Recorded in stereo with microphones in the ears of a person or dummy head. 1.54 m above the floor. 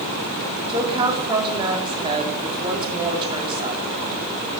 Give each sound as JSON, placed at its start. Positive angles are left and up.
{"t": 0.7, "sound": "a woman speaking", "side_deg": -25, "distance_m": 4.0}